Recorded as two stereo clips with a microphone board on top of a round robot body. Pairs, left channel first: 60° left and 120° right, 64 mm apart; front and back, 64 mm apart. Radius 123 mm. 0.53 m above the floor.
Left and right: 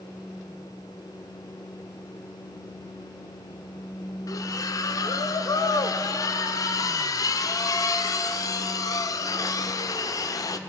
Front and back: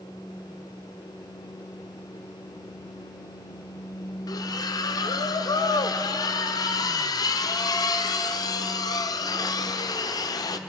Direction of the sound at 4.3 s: 25° left.